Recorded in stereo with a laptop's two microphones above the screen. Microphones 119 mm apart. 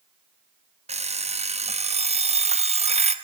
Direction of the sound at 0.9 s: 60° right (ahead or behind).